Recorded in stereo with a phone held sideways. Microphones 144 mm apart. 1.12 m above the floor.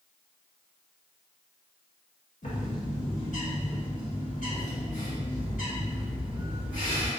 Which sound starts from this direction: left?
A bird, at 2.4 s.